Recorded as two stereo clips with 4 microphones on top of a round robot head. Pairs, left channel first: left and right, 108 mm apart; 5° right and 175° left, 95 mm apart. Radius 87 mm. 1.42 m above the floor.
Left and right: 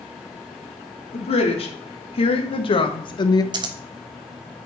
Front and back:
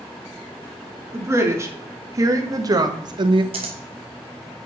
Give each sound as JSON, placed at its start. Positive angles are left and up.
{"t": 1.1, "sound": "a woman speaking", "azimuth_deg": 115, "distance_m": 3.0}
{"t": 3.5, "sound": "scissors", "azimuth_deg": -130, "distance_m": 1.1}